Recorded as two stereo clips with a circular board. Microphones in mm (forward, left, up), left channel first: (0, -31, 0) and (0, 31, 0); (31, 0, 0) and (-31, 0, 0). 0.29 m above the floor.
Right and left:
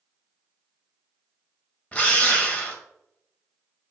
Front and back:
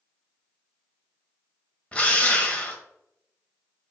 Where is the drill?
50° right, 1.6 m.